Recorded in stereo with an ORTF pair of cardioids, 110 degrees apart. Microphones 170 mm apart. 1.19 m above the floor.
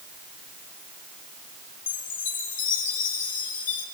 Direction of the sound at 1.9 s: 55° left.